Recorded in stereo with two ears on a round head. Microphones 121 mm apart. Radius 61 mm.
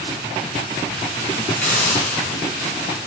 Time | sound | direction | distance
1.6 | a hiss | 10° left (ahead or behind) | 4 m